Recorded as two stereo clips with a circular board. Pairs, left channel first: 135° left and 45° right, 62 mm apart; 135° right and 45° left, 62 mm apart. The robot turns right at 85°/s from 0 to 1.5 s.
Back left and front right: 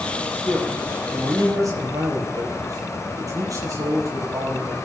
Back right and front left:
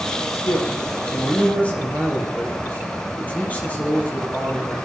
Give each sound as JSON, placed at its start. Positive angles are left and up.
{"t": 0.3, "sound": "a man speaking", "azimuth_deg": -170, "distance_m": 5.5}